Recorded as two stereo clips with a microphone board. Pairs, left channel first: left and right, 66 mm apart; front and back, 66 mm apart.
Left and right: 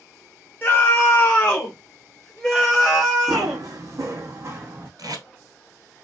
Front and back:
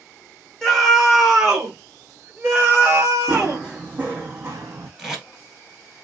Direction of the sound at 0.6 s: 75° left.